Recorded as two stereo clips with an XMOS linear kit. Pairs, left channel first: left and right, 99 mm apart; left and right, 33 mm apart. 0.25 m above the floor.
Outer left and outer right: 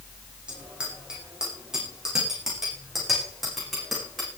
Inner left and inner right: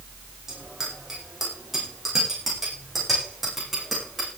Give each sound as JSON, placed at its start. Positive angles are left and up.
{"t": 0.5, "sound": "a bicycle bell", "side_deg": -10, "distance_m": 10.0}